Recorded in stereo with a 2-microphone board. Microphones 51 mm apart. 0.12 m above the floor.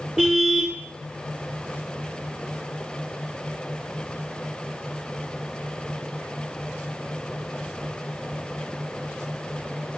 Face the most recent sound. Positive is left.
turn(degrees=-15)  # may be behind; listen again after turning